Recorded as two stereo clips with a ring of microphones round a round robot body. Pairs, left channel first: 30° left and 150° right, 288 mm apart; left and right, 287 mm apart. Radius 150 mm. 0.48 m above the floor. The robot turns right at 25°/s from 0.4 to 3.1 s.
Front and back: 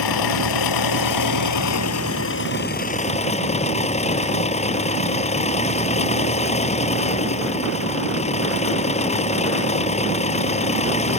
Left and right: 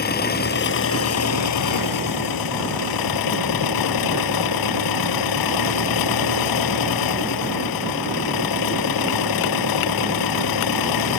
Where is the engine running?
30° left; by 11.2 s 100° left.